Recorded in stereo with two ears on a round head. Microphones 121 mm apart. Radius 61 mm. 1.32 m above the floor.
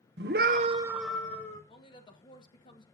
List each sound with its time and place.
0.2 s a scream: 85° right, 1.0 m; by 1.6 s 20° left (ahead or behind), 1.6 m
1.7 s a woman speaking: 35° left (ahead or behind), 1.7 m